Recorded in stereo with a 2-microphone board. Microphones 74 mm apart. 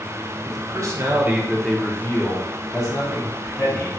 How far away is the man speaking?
About 0.8 m.